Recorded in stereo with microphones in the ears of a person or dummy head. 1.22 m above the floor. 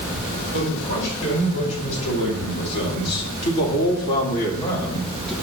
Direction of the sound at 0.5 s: 70° left (ahead or behind).